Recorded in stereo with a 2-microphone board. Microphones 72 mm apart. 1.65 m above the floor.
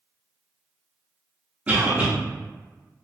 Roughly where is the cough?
Right.